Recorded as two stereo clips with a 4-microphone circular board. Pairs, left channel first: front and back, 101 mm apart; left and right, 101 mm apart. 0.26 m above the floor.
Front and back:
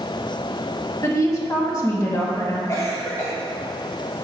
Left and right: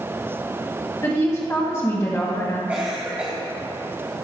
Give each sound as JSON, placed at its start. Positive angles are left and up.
{"t": 1.0, "sound": "a woman speaking", "azimuth_deg": 40, "distance_m": 1.7}
{"t": 2.7, "sound": "a cough", "azimuth_deg": -25, "distance_m": 1.3}